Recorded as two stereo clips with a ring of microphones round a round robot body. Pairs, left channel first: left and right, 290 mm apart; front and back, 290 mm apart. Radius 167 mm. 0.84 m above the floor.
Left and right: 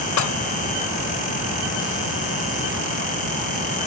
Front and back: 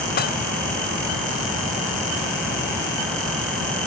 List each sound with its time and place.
0.2 s dishes clattering: 60° left